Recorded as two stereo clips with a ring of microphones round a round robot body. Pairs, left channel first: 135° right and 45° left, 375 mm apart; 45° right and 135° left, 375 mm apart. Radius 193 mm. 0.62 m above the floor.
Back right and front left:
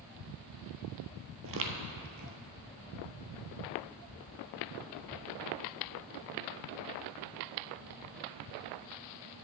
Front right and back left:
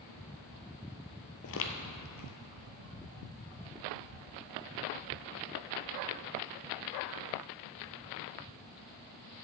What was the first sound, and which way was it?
Footsteps, straight ahead.